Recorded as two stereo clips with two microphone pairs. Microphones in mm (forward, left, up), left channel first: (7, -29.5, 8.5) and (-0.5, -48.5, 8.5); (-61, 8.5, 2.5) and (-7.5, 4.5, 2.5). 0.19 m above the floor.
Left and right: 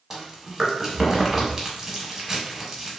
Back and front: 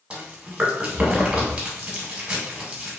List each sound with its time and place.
0.1 s chewing: 60° right, 0.8 m